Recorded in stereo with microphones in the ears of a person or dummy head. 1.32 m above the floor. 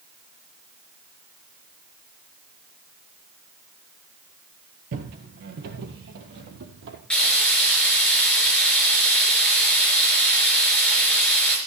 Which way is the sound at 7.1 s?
Centre (ahead or behind).